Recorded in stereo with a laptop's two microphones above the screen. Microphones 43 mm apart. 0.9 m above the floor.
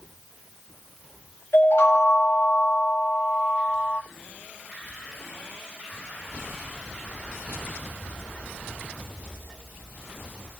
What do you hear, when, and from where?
1.5 s a chime: 70° left (ahead or behind), 1.5 m